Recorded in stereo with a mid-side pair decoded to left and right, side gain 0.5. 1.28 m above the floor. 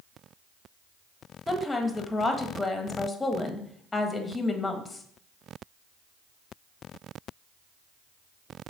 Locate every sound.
1.5 s a woman speaking: 20° left, 1.4 m